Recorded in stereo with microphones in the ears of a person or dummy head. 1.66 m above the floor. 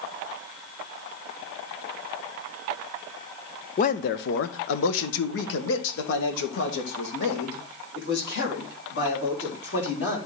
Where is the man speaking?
40° left (ahead or behind), 0.7 m; by 10.2 s 50° left (ahead or behind), 4 m.